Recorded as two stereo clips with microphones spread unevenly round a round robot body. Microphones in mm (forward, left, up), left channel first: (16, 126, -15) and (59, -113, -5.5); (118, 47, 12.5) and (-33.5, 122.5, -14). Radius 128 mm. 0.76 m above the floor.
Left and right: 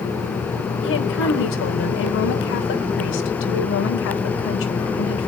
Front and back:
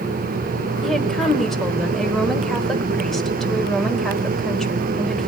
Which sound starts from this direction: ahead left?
A woman speaking, at 0.8 s.